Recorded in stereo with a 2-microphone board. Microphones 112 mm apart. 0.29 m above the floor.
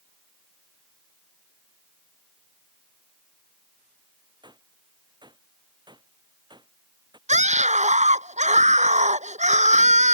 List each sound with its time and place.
4.4 s a gunshot: 40° right (ahead or behind)
7.3 s a scream: 85° right